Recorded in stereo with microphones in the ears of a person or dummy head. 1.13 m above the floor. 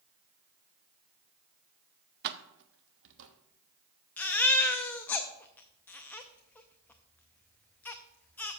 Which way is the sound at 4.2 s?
10° left (ahead or behind).